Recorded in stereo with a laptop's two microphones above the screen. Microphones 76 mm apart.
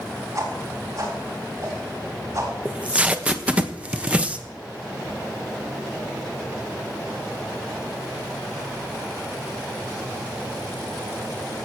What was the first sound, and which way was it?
A whoosh, 50° right (ahead or behind).